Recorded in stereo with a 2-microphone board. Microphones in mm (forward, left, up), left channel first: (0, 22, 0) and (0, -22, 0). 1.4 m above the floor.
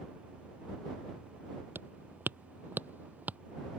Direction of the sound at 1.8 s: 50° right (ahead or behind).